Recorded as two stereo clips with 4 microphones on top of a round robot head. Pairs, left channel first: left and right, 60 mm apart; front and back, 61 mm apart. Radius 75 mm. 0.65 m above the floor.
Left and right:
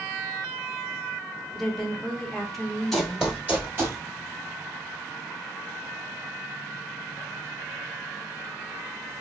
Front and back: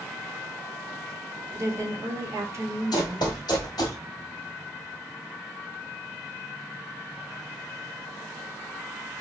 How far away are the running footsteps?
About 1.0 m.